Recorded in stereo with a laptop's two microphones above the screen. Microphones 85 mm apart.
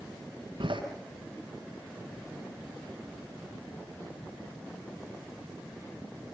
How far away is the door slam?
About 8.5 m.